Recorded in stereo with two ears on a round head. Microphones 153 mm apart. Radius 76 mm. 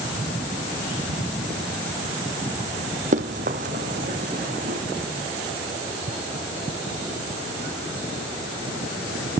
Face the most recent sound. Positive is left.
turn(degrees=-45)  # may be behind; listen again after turning